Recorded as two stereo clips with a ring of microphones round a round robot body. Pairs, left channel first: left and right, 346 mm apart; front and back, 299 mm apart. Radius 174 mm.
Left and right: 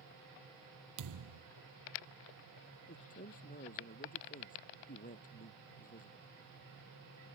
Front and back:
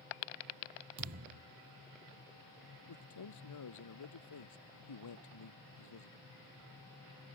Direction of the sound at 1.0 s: 130° right.